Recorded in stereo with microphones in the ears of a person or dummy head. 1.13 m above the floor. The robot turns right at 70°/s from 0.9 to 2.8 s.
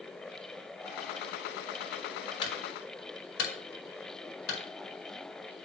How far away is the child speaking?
No child speaking in this recording.